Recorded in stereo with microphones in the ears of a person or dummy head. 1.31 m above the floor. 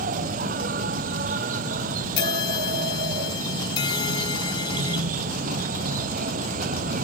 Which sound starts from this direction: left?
A bell, at 2.2 s.